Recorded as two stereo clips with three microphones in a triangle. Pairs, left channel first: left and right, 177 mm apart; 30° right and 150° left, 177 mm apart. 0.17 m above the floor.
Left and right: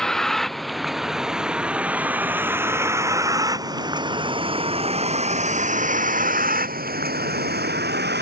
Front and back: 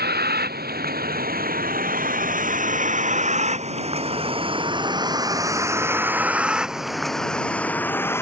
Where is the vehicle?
175° left; by 8.2 s 105° right.